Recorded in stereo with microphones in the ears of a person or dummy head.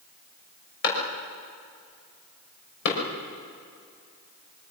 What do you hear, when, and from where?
0.8 s a clap: 65° left (ahead or behind), 6 m